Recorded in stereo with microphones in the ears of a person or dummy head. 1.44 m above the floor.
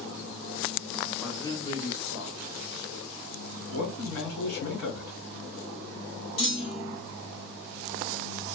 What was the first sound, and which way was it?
A man speaking, 5° left (ahead or behind).